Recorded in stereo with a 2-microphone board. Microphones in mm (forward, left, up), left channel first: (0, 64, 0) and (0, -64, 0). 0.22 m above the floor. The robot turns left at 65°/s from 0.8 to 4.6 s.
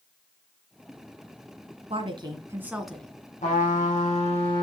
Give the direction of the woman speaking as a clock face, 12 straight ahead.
4 o'clock.